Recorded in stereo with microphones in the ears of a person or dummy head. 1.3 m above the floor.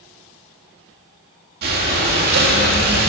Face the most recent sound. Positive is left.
turn(degrees=-55)  # may be behind; listen again after turning